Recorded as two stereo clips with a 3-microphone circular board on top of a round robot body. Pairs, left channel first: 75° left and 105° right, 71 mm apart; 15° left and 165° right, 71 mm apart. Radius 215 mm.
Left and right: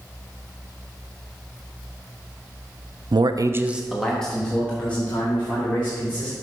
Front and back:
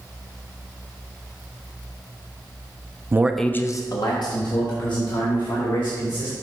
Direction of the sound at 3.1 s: 110° right.